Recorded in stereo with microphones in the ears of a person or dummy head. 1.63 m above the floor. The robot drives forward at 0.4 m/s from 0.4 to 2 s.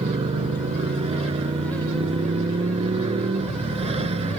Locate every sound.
0.0 s a motorcycle: 35° right (ahead or behind); by 4.4 s 30° right (ahead or behind)